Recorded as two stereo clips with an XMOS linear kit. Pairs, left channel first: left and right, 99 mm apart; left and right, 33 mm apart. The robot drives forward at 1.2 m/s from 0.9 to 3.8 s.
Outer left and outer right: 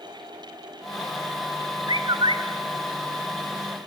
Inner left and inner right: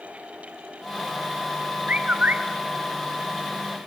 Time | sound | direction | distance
1.9 | a bird | 50° right (ahead or behind) | 1.3 m